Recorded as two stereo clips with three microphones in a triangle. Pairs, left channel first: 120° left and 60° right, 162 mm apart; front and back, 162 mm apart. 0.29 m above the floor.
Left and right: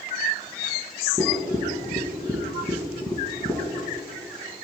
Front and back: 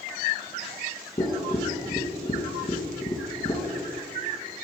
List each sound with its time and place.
1.2 s tapping: 50° left, 1.7 m